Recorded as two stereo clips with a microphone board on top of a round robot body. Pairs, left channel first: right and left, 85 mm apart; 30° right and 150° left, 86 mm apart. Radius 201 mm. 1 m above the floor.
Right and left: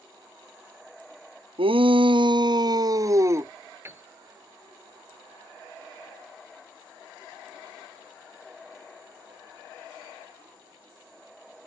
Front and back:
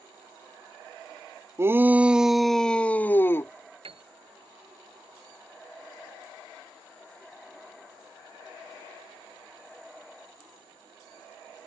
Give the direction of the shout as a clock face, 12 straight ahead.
9 o'clock.